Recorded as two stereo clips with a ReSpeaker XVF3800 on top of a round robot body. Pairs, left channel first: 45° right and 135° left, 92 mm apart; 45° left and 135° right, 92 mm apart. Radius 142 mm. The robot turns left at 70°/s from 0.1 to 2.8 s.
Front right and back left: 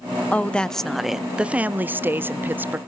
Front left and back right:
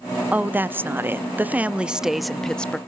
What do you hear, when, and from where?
0.3 s a woman speaking: 90° right, 0.8 m; by 2.8 s 100° left, 0.8 m